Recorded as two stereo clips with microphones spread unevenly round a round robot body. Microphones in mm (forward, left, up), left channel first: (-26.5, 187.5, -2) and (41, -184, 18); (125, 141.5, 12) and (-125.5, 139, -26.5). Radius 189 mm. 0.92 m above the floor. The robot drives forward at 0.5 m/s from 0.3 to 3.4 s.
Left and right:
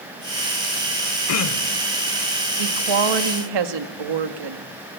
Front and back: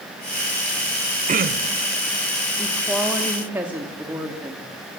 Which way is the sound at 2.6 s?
85° right.